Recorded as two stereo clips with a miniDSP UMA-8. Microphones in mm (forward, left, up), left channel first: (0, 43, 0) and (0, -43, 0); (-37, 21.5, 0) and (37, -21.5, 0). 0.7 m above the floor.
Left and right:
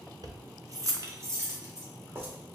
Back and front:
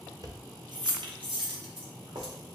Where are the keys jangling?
60° right, 0.5 m; by 2.3 s 30° right, 1.5 m.